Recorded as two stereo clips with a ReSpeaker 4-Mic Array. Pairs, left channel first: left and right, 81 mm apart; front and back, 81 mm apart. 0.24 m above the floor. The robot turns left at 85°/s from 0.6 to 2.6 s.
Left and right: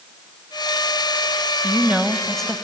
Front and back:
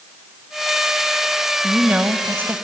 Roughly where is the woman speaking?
Behind right.